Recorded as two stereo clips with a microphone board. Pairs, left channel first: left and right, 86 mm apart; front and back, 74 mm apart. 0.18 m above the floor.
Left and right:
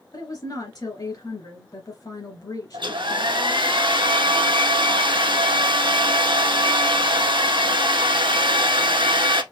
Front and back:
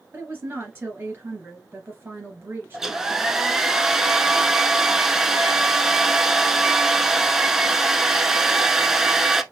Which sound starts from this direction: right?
A hair dryer, at 2.7 s.